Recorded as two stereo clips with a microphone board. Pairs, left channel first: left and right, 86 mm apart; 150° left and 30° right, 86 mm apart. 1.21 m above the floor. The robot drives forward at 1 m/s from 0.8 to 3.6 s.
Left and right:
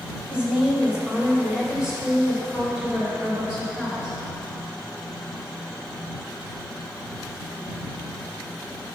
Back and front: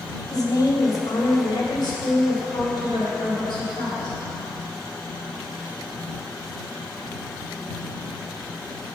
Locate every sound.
0.3 s a woman speaking: 165° right, 1.3 m; by 4.2 s 175° right, 4 m